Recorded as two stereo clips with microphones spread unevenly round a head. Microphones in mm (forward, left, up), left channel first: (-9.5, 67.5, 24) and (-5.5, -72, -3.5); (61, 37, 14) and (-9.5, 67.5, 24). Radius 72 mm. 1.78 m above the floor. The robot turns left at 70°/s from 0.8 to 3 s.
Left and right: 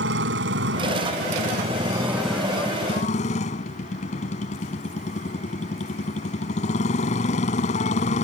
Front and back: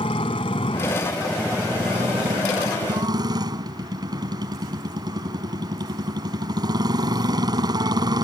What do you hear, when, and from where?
0.0 s a motorcycle: 75° right; by 8.2 s 130° left